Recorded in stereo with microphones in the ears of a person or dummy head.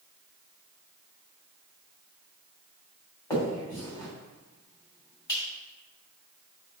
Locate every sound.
3.3 s a finger snap: 20° left (ahead or behind), 2.5 m